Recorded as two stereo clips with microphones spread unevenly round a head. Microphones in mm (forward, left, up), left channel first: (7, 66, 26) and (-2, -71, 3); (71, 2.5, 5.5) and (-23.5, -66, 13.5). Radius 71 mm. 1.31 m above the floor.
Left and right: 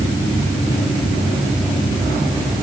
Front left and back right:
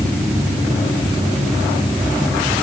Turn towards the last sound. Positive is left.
No sound to turn to.